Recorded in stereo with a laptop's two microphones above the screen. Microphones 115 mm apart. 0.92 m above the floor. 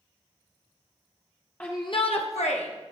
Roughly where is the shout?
Centre.